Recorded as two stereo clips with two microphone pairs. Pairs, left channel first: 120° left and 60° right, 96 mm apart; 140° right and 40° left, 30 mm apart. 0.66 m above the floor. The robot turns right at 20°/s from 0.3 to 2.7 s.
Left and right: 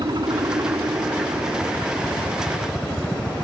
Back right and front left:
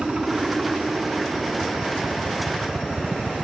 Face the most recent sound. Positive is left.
turn(degrees=30)